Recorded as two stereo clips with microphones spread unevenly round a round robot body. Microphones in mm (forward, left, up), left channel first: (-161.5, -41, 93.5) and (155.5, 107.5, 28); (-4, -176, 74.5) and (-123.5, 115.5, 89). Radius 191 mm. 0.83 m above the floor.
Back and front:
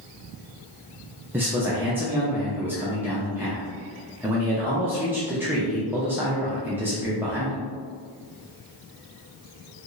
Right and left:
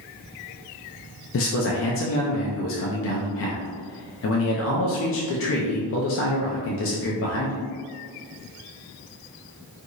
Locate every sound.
1.3 s a man speaking: 45° right, 0.5 m